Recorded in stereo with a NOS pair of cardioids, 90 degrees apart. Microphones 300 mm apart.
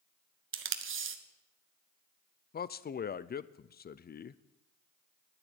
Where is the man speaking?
30° left, 0.6 m.